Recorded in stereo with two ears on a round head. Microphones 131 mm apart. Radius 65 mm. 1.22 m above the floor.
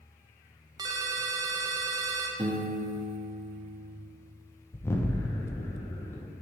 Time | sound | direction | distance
0.8 | a ringtone | 25° right (ahead or behind) | 0.5 m
2.4 | a piano | 35° right (ahead or behind) | 0.6 m
4.7 | an explosion | 20° left (ahead or behind) | 0.6 m